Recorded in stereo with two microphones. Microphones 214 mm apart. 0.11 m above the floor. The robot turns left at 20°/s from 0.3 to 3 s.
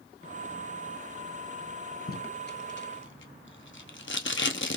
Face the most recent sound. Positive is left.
turn(degrees=60)  # may be behind; listen again after turning